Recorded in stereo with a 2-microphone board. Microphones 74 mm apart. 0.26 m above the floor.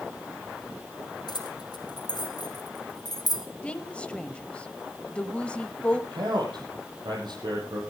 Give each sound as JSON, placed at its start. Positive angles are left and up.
{"t": 1.3, "sound": "keys jangling", "side_deg": 80, "distance_m": 4.5}
{"t": 3.6, "sound": "a woman speaking", "side_deg": 15, "distance_m": 1.0}
{"t": 6.1, "sound": "a man speaking", "side_deg": -80, "distance_m": 6.5}